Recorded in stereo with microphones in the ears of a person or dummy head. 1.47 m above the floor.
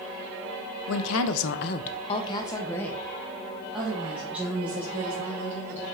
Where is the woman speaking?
70° left (ahead or behind), 0.7 m; by 5.8 s 15° right (ahead or behind), 3 m.